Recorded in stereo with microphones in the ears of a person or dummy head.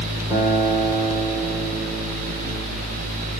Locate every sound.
0.3 s a guitar: 10° right (ahead or behind), 1.1 m